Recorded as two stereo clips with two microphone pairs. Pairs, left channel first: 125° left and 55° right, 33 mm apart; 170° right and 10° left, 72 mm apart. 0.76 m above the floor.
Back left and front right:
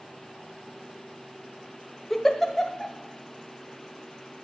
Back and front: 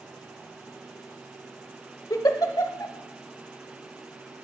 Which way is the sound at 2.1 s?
155° right.